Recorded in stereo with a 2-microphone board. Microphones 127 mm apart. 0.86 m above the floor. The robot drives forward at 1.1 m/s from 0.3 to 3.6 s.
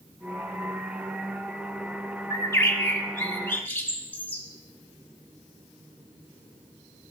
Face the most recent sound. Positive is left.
turn(degrees=15)  # may be behind; listen again after turning